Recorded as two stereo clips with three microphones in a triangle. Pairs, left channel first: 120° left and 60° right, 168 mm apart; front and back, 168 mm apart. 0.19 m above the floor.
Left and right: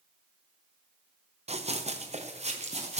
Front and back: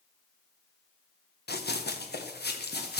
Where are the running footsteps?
10° right, 1.5 m.